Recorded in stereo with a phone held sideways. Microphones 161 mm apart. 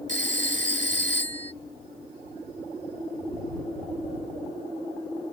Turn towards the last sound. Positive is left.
turn(degrees=-50)  # may be behind; listen again after turning